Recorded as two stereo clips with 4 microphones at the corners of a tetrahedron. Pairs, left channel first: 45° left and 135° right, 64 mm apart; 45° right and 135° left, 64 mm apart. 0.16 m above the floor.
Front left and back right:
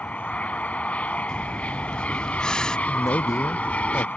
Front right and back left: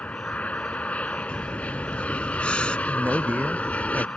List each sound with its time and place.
0.0 s an aircraft: straight ahead
1.3 s breathing: 10° right
2.9 s a man speaking: 70° left